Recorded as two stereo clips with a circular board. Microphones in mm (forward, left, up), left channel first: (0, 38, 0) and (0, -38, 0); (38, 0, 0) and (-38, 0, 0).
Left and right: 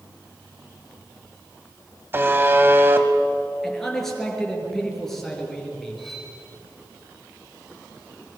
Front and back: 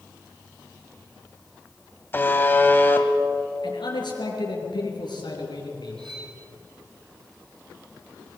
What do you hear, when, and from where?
2.1 s a buzzer: 45° right, 1.8 m
3.6 s a man speaking: 5° left, 5 m
6.0 s cutlery clinking: 175° left, 5 m